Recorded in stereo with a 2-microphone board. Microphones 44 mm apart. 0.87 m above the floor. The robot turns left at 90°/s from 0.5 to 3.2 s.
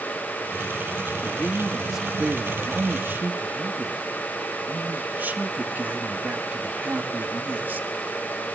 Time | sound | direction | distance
1.2 | a man speaking | 55° left | 1.8 m